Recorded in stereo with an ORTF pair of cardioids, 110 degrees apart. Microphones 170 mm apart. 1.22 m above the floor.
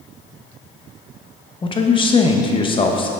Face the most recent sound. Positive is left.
turn(degrees=30)